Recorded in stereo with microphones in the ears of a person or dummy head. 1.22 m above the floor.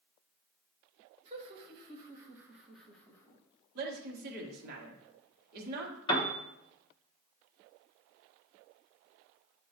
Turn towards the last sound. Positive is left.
turn(degrees=20)  # may be behind; listen again after turning